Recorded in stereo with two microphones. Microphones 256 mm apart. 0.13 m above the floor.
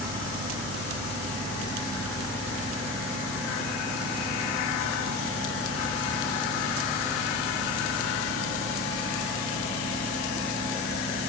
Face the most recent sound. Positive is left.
No sound to turn to.